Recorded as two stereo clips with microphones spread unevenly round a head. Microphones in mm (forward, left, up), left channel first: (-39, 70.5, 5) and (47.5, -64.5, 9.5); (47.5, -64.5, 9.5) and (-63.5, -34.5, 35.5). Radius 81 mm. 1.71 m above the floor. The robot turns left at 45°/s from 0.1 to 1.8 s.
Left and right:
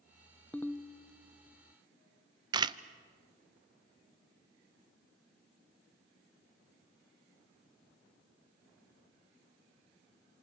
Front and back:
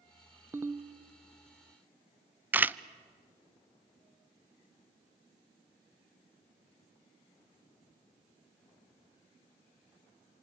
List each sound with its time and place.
0.5 s a ringtone: 160° right, 0.6 m; by 0.9 s 175° right, 0.6 m
2.5 s a camera shutter: 125° right, 0.6 m